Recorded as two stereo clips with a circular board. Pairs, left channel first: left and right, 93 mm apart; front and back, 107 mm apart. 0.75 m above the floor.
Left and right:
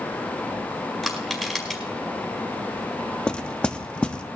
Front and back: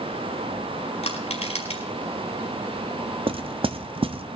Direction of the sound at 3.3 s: 170° left.